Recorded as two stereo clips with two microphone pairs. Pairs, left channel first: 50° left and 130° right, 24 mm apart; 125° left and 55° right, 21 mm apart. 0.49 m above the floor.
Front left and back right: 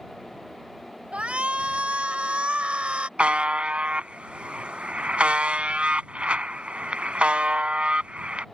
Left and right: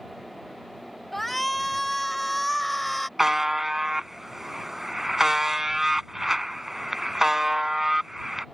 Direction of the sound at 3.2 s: 130° right.